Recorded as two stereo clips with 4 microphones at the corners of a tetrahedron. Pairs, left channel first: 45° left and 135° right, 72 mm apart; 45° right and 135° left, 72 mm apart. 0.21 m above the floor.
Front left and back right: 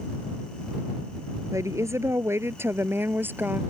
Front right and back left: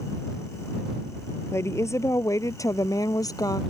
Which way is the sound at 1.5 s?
95° right.